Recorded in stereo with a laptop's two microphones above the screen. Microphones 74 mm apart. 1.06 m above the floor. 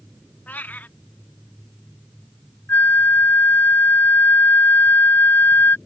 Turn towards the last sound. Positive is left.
turn(degrees=25)  # may be behind; listen again after turning